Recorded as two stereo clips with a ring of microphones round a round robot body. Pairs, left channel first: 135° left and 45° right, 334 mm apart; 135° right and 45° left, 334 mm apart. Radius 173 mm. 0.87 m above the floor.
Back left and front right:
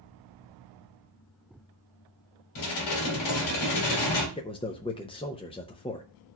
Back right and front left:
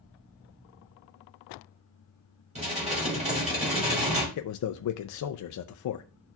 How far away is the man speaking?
About 0.5 m.